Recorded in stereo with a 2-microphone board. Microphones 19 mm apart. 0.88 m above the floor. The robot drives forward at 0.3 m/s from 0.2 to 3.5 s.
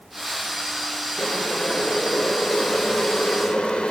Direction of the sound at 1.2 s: 60° left (ahead or behind).